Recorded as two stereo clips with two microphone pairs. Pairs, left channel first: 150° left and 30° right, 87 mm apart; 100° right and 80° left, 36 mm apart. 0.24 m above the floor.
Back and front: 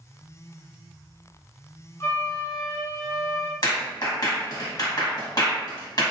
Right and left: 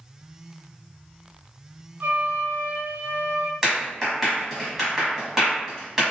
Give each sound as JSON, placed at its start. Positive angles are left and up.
{"t": 2.0, "sound": "a flute", "azimuth_deg": 90, "distance_m": 0.6}
{"t": 3.6, "sound": "a clap", "azimuth_deg": 155, "distance_m": 1.6}